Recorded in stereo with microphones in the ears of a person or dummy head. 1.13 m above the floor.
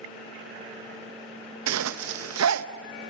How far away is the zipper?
About 0.8 m.